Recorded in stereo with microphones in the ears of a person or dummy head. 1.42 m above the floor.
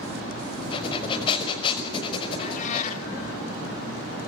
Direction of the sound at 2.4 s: 50° left (ahead or behind).